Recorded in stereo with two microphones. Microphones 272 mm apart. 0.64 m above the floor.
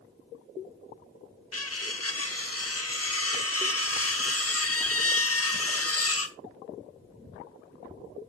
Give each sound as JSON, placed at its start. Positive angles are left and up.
{"t": 1.5, "sound": "cutlery clinking", "side_deg": 60, "distance_m": 0.8}